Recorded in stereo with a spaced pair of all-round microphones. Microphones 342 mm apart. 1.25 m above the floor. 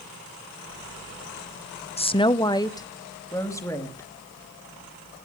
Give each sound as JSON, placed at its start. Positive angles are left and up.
{"t": 2.0, "sound": "a woman speaking", "side_deg": 20, "distance_m": 0.5}